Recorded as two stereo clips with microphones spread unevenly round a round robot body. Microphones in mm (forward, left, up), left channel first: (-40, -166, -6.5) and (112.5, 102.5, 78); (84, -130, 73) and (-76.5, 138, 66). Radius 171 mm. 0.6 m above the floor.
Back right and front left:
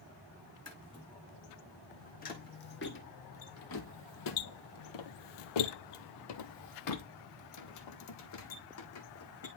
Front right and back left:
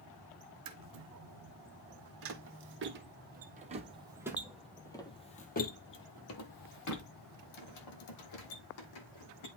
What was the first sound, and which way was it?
Footsteps, 160° left.